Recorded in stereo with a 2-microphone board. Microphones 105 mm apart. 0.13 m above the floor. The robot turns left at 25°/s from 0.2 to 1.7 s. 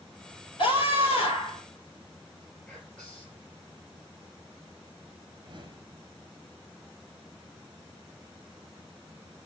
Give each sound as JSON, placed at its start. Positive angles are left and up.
{"t": 0.6, "sound": "a scream", "side_deg": 60, "distance_m": 2.5}
{"t": 2.7, "sound": "whispering", "side_deg": 10, "distance_m": 2.5}
{"t": 5.3, "sound": "a whoosh", "side_deg": -50, "distance_m": 0.7}